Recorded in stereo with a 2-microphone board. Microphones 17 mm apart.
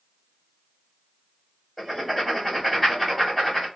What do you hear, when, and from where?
1.8 s writing: centre (ahead or behind), 1.6 m